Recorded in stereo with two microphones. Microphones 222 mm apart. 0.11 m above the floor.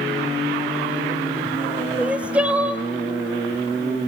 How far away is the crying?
About 0.5 m.